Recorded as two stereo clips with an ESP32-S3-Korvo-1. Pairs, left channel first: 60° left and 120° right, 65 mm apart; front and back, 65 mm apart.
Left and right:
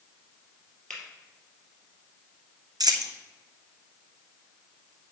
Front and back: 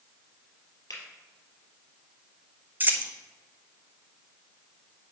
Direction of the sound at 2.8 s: 115° right.